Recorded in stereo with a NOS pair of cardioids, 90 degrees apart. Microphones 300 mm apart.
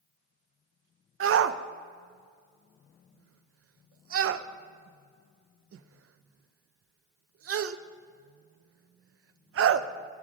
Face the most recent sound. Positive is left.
turn(degrees=-50)